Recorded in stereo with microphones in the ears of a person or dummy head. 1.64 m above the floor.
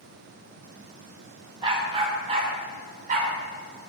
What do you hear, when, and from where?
1.6 s a dog barking: 30° right (ahead or behind), 2.5 m; by 3.3 s 50° right (ahead or behind), 3 m